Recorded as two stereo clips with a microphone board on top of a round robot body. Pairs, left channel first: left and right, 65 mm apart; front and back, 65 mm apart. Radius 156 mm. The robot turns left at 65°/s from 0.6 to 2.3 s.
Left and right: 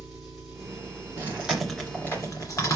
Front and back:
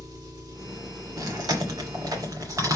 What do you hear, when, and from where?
0.0 s an engine running: 175° right, 4.5 m; by 2.8 s 75° left, 4.5 m
1.2 s chewing: 150° right, 2.5 m; by 2.8 s 135° left, 2.5 m